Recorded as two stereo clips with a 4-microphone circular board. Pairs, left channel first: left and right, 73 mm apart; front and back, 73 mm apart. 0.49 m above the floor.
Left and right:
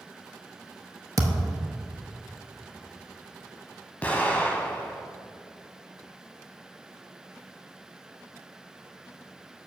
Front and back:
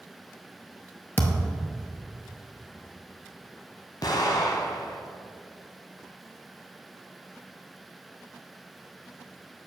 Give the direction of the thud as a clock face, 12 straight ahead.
2 o'clock.